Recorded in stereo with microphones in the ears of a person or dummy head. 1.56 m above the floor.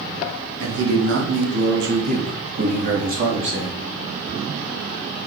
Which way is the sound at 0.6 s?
85° right.